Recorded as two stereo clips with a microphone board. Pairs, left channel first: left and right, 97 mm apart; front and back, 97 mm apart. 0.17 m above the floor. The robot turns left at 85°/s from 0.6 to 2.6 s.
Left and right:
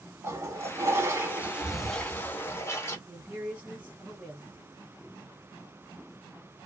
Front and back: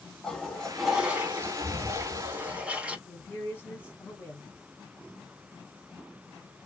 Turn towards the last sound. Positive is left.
turn(degrees=-30)